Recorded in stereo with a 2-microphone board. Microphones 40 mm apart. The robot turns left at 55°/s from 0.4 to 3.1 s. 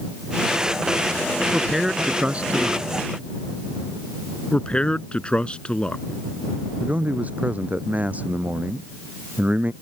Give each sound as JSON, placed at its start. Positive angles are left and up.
{"t": 1.5, "sound": "a man speaking", "azimuth_deg": -10}
{"t": 4.5, "sound": "a man speaking", "side_deg": 25}
{"t": 6.8, "sound": "a man speaking", "side_deg": -40}